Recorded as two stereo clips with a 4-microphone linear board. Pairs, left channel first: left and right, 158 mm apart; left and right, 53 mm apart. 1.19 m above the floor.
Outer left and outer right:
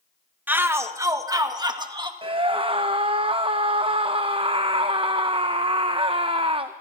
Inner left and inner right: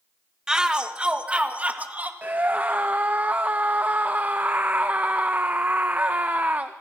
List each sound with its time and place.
0.5 s a shout: 10° right (ahead or behind), 1.3 m; by 2.1 s 30° right (ahead or behind), 2 m
2.2 s a scream: 35° right (ahead or behind), 0.7 m